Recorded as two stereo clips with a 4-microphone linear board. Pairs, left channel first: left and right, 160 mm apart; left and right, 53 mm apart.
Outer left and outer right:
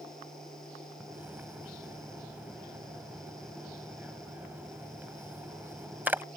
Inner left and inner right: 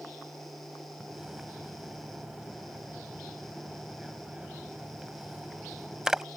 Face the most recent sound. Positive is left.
turn(degrees=-10)  # may be behind; listen again after turning